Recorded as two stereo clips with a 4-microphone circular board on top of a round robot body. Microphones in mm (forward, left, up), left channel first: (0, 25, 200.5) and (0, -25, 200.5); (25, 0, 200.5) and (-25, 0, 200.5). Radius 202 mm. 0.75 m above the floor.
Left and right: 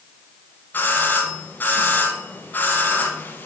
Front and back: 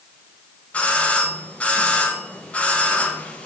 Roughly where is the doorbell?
Ahead left.